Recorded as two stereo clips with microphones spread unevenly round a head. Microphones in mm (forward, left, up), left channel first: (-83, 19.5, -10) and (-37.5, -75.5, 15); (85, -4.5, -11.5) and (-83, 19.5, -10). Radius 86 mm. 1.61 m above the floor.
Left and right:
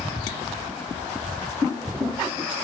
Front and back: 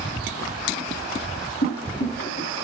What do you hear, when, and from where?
1.6 s boiling: 30° left, 3 m